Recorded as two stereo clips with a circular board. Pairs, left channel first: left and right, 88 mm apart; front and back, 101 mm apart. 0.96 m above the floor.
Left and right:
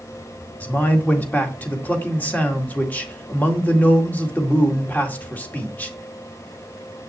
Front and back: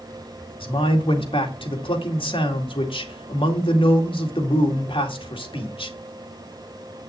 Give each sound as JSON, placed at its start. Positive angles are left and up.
{"t": 0.6, "sound": "a man speaking", "azimuth_deg": 20, "distance_m": 2.0}